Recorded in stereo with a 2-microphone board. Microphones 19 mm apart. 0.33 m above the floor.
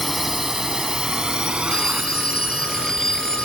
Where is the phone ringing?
35° left (ahead or behind).